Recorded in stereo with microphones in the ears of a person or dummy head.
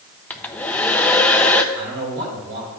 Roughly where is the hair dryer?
Centre.